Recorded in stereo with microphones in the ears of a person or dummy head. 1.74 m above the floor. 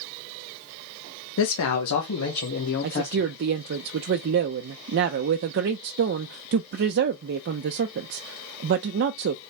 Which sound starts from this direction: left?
A man speaking, at 1.4 s.